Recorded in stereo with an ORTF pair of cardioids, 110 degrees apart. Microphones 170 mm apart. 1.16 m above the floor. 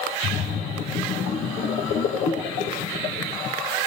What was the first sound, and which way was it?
A splash, 60° left.